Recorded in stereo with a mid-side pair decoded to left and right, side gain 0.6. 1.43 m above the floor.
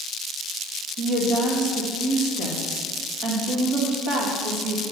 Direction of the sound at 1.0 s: 55° right.